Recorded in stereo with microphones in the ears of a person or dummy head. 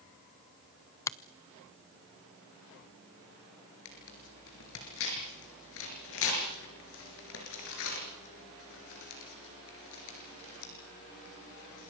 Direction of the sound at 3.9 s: 70° left (ahead or behind).